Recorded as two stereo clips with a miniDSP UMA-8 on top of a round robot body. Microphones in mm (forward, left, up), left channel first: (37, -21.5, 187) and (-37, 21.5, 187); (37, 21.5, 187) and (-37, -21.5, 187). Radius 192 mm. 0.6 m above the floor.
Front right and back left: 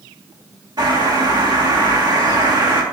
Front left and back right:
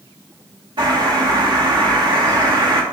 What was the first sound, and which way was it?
A bird, 175° right.